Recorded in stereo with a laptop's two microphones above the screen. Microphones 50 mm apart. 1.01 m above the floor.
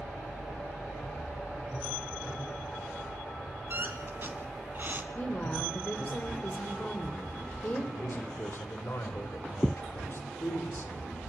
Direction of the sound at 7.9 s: 50° left (ahead or behind).